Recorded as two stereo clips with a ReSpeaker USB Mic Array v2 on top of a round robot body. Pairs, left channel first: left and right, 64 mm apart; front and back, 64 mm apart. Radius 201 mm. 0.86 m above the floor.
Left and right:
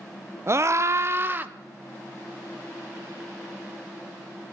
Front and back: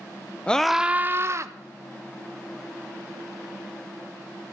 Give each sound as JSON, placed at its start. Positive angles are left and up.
{"t": 0.5, "sound": "a scream", "azimuth_deg": -70, "distance_m": 1.0}